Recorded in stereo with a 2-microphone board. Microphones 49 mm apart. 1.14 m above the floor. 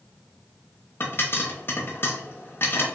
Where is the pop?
50° left (ahead or behind), 0.7 m.